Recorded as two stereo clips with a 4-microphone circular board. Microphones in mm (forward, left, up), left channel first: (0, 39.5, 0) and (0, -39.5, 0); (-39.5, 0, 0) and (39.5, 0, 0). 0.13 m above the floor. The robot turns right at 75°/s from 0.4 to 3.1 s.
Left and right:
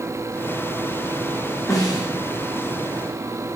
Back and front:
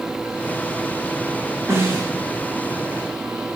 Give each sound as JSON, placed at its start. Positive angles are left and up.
{"t": 1.7, "sound": "a snare drum", "azimuth_deg": 45, "distance_m": 7.5}